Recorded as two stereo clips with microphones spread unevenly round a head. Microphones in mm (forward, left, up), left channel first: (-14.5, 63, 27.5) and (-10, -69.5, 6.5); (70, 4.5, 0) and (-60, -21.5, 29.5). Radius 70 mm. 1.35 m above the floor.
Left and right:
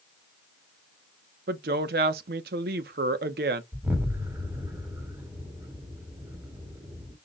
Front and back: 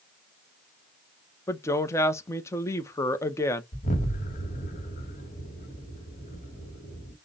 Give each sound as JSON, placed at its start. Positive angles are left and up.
{"t": 1.5, "sound": "a woman speaking", "azimuth_deg": -60, "distance_m": 0.7}
{"t": 3.7, "sound": "an explosion", "azimuth_deg": -10, "distance_m": 1.4}